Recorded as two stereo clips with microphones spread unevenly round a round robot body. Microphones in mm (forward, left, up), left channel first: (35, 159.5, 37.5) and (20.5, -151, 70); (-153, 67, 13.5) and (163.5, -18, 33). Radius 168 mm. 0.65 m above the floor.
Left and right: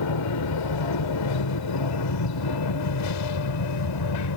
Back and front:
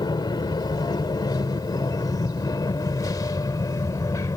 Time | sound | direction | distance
0.0 | an aircraft | 90° left | ?